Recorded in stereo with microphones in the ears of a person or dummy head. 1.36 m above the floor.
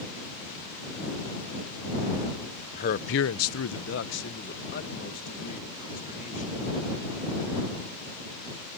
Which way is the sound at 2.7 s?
40° left (ahead or behind).